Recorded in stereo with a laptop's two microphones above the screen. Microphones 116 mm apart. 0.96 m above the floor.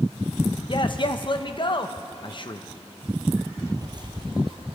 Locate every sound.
0.7 s a man speaking: 45° left (ahead or behind), 0.6 m
3.6 s footsteps: 35° right (ahead or behind), 1.1 m; by 4.8 s 50° right (ahead or behind), 1.5 m